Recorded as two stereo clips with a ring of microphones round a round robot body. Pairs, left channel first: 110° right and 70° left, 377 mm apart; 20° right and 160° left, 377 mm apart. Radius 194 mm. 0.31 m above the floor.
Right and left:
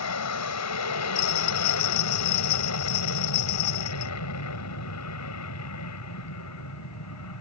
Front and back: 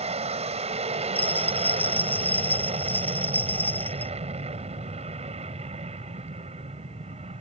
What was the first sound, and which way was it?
An aircraft, 135° right.